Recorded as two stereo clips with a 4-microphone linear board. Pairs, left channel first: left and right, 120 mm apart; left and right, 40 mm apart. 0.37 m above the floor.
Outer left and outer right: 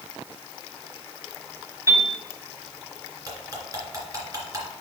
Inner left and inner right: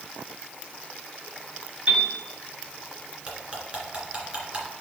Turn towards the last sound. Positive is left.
turn(degrees=-30)  # may be behind; listen again after turning